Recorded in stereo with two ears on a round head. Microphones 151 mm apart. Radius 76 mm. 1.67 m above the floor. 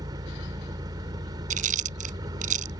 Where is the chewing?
50° right (ahead or behind).